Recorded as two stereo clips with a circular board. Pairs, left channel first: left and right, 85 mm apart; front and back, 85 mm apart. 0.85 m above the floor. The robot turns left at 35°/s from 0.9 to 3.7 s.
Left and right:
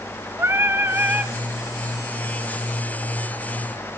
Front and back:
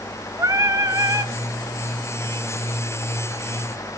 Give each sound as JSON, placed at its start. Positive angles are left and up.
{"t": 0.4, "sound": "singing", "azimuth_deg": -140, "distance_m": 2.0}